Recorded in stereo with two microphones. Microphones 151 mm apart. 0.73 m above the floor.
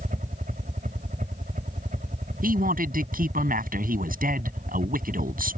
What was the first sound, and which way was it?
A helicopter, 65° right (ahead or behind).